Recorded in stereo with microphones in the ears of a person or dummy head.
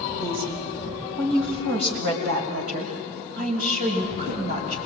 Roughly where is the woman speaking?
Right.